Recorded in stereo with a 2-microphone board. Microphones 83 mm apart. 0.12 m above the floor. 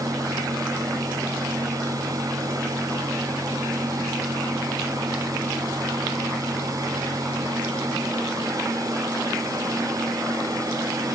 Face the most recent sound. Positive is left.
No sound to turn to.